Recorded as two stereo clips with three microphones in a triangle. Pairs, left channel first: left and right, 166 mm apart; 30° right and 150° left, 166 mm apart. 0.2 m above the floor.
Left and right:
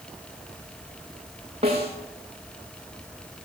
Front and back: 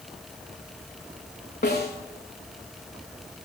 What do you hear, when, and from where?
1.6 s a snare drum: 35° right, 6.5 m